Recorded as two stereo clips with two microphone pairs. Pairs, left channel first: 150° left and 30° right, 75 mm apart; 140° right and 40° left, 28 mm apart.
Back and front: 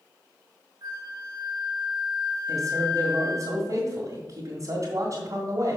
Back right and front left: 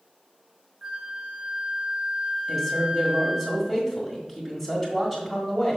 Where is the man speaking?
25° right, 1.6 m.